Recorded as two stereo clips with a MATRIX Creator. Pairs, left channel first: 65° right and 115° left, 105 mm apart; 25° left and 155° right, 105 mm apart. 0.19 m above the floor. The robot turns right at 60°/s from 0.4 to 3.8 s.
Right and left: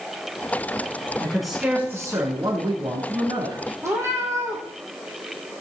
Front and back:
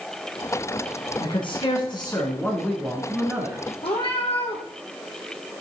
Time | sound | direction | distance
1.2 | a man speaking | 10° left | 1.8 m
3.8 | a cat meowing | 50° left | 3 m